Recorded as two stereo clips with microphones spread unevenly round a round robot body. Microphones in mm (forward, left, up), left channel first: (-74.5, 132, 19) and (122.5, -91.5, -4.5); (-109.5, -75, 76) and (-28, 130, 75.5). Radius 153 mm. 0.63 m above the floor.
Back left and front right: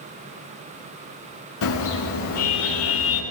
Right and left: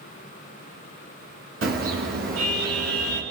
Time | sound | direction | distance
1.6 | a car horn | 100° left | 5 m